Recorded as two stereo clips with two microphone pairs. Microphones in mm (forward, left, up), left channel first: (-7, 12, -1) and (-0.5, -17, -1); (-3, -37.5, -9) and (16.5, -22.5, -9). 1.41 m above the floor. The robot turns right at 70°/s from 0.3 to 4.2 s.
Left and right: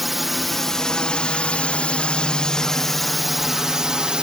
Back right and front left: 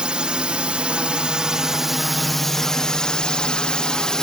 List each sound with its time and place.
0.0 s a drone: 10° left; by 4.2 s 110° right